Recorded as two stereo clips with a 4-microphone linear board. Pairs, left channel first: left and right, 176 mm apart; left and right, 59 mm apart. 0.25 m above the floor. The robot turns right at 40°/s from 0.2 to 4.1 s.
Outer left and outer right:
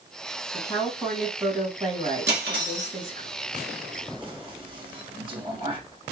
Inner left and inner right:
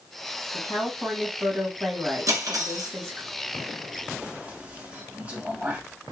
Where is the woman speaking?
155° left, 1.8 m; by 3.3 s 100° right, 1.8 m.